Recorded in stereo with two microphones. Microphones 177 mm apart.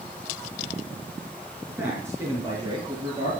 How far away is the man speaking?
About 4.5 m.